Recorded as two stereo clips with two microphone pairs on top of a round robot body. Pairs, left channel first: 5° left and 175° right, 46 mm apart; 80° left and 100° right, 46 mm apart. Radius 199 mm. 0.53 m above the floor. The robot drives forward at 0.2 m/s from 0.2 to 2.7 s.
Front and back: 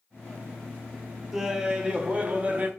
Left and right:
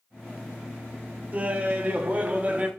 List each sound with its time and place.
1.3 s laughter: 130° right, 0.7 m; by 2.7 s 160° right, 0.8 m